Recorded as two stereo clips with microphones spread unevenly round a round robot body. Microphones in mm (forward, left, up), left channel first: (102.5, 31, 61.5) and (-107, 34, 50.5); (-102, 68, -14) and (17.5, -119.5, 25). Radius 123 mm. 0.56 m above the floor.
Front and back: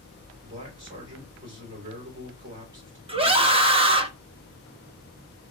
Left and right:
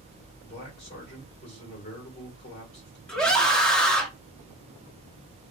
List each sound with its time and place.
0.4 s a man speaking: 170° left, 1.7 m
3.1 s a scream: 175° right, 0.7 m